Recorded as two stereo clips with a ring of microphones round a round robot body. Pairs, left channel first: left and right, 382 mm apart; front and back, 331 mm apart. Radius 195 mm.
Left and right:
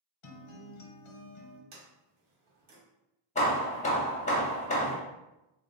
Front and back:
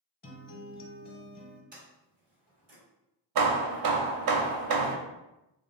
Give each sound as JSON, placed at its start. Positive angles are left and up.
{"t": 0.2, "sound": "a guitar", "azimuth_deg": 65, "distance_m": 1.0}
{"t": 1.7, "sound": "a sliding door", "azimuth_deg": -110, "distance_m": 1.7}
{"t": 3.4, "sound": "hammering", "azimuth_deg": 160, "distance_m": 0.7}